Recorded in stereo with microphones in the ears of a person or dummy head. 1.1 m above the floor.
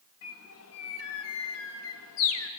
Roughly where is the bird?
Left.